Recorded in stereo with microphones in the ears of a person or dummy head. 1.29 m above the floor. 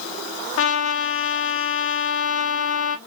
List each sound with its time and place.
0.6 s a trumpet: 75° left (ahead or behind), 0.7 m